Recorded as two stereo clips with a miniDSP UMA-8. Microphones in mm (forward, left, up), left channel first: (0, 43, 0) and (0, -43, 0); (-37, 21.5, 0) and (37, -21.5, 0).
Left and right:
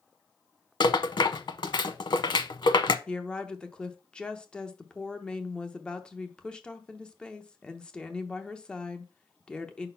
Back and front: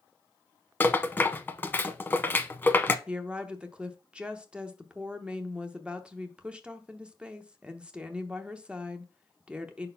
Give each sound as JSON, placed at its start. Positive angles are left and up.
{"t": 0.8, "sound": "a rattle", "azimuth_deg": 85, "distance_m": 0.6}
{"t": 3.1, "sound": "a woman speaking", "azimuth_deg": 25, "distance_m": 0.7}